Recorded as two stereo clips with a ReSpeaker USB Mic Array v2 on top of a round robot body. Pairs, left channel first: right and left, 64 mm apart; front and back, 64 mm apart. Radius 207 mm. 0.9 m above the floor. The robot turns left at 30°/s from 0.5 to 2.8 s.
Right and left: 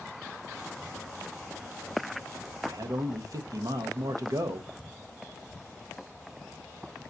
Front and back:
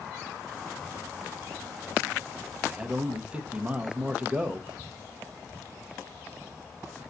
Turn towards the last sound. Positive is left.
turn(degrees=105)